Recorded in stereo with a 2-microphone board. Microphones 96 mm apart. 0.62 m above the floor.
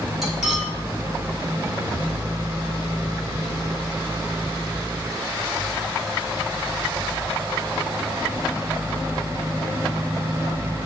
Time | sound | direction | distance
0.2 | cutlery clinking | centre (ahead or behind) | 3 m